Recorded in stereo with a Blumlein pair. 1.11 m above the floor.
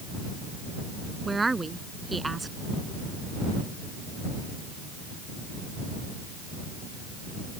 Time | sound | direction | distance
1.2 | a woman speaking | 10° right | ?